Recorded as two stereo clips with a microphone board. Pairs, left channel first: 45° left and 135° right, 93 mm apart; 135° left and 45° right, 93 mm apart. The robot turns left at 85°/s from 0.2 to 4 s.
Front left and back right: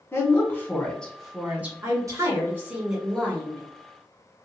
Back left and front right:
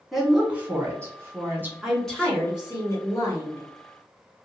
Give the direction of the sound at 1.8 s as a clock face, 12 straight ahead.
4 o'clock.